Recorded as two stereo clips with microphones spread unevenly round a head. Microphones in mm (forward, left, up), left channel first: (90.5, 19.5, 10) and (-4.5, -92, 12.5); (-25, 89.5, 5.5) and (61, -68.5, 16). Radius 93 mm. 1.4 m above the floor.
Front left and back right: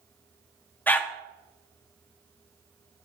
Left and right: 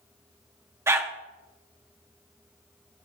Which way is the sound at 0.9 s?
15° right.